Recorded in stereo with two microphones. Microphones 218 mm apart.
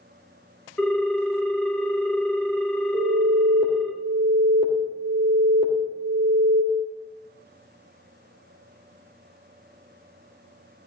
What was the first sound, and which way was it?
A ringtone, 5° left (ahead or behind).